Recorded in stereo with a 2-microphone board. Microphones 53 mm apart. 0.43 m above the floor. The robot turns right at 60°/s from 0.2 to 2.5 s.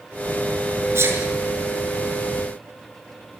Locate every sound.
0.9 s a sneeze: 55° right (ahead or behind), 6 m; by 1.2 s 65° right (ahead or behind), 6 m